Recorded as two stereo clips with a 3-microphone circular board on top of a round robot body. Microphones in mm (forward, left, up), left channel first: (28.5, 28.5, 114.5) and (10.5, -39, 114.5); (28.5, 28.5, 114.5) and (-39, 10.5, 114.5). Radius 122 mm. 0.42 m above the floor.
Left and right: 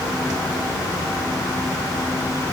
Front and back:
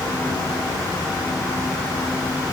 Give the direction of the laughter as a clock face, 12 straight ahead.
I don't hear laughter.